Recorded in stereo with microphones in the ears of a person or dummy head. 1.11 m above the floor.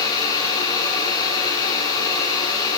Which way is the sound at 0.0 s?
20° left (ahead or behind).